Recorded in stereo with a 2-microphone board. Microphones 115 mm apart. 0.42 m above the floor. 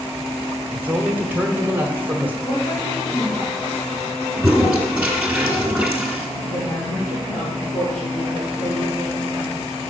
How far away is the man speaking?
About 1.1 m.